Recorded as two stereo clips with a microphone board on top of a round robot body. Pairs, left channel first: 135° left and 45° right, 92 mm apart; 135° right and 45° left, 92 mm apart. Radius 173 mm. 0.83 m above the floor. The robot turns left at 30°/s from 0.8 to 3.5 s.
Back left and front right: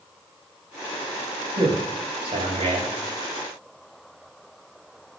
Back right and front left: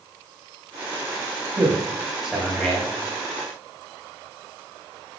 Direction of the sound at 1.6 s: 15° right.